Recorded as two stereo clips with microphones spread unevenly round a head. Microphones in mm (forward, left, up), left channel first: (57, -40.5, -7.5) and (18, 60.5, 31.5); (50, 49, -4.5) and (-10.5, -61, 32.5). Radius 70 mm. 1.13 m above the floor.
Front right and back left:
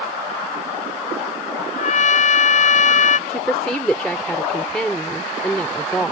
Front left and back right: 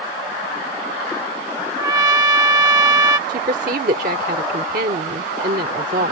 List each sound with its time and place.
1.8 s a trumpet: 55° right
3.3 s a woman speaking: 155° right